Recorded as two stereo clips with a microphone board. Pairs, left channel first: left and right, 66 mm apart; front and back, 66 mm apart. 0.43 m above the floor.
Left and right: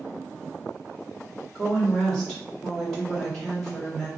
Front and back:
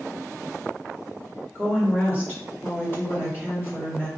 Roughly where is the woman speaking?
Ahead.